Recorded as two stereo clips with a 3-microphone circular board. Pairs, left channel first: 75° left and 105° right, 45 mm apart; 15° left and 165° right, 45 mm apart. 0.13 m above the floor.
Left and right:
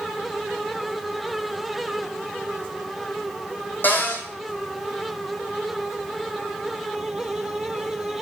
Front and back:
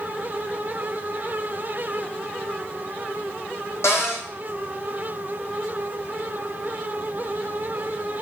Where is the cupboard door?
30° left, 2 m.